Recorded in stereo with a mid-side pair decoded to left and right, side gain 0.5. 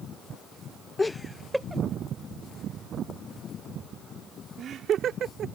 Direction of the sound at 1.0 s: 25° left.